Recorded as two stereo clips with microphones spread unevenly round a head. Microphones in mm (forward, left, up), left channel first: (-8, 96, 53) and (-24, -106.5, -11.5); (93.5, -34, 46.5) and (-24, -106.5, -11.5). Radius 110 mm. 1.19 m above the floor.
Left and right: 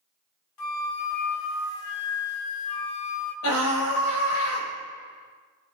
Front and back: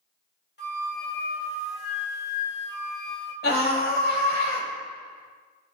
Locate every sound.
0.6 s a flute: 75° left, 1.6 m
3.4 s a scream: 60° left, 6.5 m